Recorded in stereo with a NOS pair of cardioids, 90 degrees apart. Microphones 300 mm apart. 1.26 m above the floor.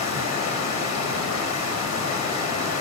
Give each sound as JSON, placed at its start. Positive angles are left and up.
{"t": 0.0, "sound": "running water", "azimuth_deg": 65, "distance_m": 1.1}